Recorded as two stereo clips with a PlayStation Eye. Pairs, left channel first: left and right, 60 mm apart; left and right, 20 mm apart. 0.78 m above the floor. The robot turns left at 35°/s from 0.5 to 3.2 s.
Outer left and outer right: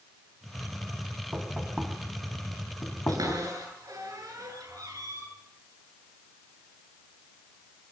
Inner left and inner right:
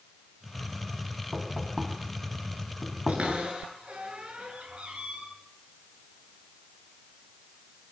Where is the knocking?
25° right (ahead or behind), 3.5 m; by 3.4 s 40° left (ahead or behind), 3.5 m.